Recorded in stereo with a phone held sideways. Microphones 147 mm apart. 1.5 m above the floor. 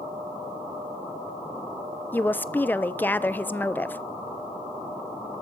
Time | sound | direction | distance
2.1 | a woman speaking | 10° left (ahead or behind) | 0.7 m